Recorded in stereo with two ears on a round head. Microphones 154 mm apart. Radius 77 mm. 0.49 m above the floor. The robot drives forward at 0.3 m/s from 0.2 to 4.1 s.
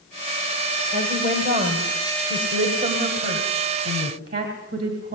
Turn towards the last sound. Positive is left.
turn(degrees=-55)  # may be behind; listen again after turning